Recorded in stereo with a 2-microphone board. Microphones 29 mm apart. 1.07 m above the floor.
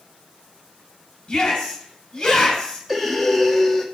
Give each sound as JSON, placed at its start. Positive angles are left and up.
{"t": 1.3, "sound": "a shout", "side_deg": 25, "distance_m": 5.5}
{"t": 2.9, "sound": "breathing", "side_deg": 0, "distance_m": 1.2}